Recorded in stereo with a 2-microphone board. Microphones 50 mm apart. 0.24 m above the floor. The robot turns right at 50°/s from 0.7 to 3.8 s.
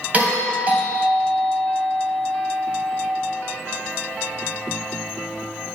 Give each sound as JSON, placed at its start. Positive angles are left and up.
{"t": 0.1, "sound": "a doorbell", "azimuth_deg": -95, "distance_m": 1.9}